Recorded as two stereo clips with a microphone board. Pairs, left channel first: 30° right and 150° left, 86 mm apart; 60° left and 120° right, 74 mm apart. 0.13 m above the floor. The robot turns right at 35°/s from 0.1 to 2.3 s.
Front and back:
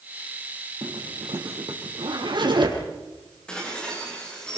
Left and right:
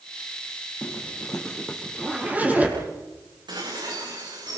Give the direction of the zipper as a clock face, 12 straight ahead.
8 o'clock.